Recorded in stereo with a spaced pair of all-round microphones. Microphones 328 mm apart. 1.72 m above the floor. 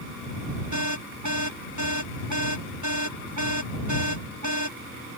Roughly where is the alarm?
Right.